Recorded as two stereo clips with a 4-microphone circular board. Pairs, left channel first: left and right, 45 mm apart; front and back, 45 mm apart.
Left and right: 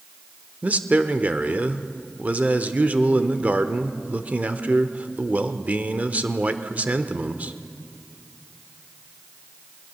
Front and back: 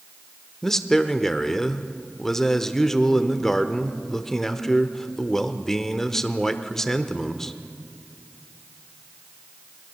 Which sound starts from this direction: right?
A man speaking, at 0.6 s.